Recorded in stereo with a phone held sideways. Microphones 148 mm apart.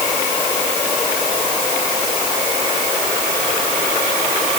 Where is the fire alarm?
No fire alarm in this recording.